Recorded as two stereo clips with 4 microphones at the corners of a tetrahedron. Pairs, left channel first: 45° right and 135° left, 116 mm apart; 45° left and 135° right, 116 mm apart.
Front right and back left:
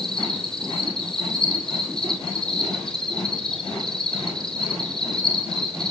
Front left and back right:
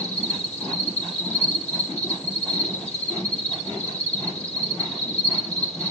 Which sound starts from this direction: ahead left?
An insect, at 0.0 s.